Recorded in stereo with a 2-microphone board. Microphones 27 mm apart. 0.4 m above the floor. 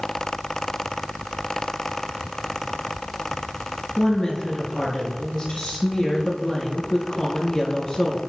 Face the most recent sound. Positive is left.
turn(degrees=35)  # may be behind; listen again after turning